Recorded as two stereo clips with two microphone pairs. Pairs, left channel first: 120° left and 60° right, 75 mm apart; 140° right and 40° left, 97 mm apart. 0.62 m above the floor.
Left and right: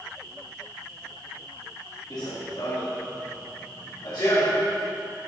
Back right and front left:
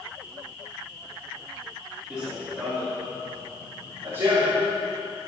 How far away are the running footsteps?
About 4 m.